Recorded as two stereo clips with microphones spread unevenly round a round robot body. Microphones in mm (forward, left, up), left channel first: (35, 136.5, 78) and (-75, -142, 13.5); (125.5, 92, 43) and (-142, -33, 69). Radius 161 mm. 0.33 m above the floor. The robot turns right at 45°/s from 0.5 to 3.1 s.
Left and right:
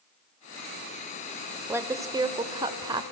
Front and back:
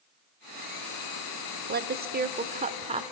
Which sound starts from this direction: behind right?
A woman speaking, at 1.7 s.